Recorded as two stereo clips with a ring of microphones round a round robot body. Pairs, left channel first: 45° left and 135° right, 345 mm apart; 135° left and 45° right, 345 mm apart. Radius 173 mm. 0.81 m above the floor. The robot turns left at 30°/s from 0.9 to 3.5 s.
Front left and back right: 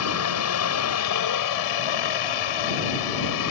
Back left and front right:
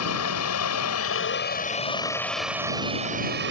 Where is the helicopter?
90° left; by 3.5 s 10° left.